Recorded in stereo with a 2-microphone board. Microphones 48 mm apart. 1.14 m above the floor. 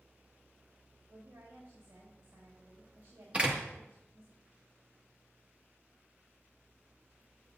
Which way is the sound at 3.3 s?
25° right (ahead or behind).